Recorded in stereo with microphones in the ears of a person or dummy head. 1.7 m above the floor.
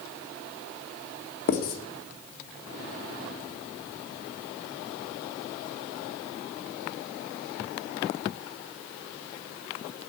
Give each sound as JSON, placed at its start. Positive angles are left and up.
{"t": 1.5, "sound": "writing", "side_deg": 50, "distance_m": 1.8}